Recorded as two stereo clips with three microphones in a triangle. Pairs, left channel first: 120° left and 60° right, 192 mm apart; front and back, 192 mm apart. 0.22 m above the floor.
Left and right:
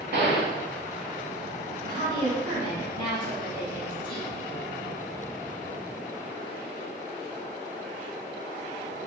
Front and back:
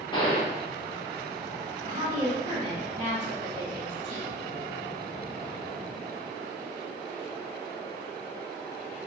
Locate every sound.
0.1 s a gunshot: 60° right, 0.6 m
1.8 s a woman speaking: 170° left, 1.5 m